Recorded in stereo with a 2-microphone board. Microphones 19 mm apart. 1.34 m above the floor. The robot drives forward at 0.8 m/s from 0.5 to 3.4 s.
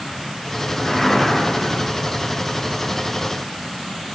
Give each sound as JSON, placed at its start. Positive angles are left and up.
{"t": 0.8, "sound": "a whoosh", "side_deg": 30, "distance_m": 3.5}